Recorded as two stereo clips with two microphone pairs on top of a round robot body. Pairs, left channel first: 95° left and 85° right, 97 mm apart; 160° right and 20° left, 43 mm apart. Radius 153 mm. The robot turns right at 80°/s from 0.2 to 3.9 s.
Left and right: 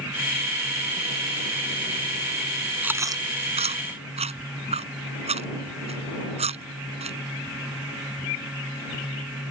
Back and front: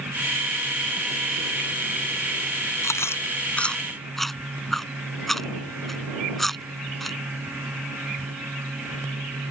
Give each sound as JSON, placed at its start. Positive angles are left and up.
{"t": 2.8, "sound": "chewing", "azimuth_deg": -160}